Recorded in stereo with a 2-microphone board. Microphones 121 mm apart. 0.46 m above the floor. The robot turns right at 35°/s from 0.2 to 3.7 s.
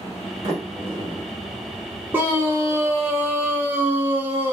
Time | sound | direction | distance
0.4 | a sliding door | 55° right (ahead or behind) | 1.3 m
2.1 | a scream | 15° right (ahead or behind) | 0.7 m